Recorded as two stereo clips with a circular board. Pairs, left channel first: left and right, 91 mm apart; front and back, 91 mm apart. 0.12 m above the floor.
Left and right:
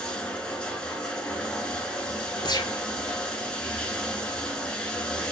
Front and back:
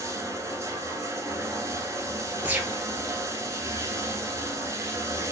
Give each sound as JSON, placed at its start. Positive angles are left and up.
{"t": 0.0, "sound": "running water", "azimuth_deg": 160, "distance_m": 1.2}
{"t": 2.4, "sound": "a gunshot", "azimuth_deg": 115, "distance_m": 1.0}